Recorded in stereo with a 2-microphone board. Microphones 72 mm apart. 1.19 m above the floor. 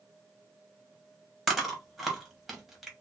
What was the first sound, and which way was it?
Chewing, centre (ahead or behind).